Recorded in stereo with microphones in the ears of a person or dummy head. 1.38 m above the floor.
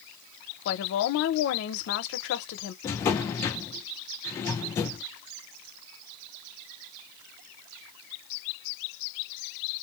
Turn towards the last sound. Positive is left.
turn(degrees=15)  # may be behind; listen again after turning